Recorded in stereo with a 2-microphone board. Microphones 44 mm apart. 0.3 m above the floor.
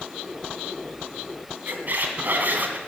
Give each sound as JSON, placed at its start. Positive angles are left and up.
{"t": 1.7, "sound": "a squeak", "side_deg": -50, "distance_m": 1.9}